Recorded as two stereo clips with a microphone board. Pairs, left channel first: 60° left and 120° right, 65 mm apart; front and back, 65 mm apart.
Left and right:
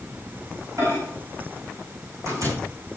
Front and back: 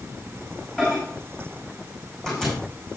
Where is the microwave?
80° right, 5.5 m.